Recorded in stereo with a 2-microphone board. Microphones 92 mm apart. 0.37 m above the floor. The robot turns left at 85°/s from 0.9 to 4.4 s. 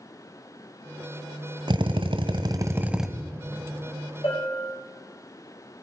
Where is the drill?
60° right, 1.0 m; by 3.1 s straight behind, 1.0 m.